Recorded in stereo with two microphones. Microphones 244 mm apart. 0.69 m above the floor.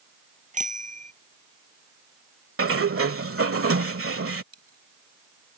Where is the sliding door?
65° right (ahead or behind).